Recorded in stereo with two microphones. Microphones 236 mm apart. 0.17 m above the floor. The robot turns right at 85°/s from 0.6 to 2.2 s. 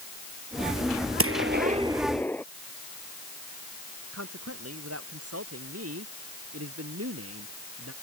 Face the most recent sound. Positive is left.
turn(degrees=-85)